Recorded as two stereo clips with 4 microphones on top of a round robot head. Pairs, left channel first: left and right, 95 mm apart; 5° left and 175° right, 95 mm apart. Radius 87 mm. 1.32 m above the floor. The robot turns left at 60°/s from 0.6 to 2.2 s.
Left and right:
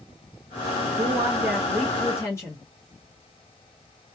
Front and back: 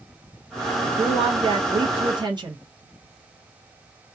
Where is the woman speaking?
130° right, 0.8 m; by 2.6 s 150° left, 0.8 m.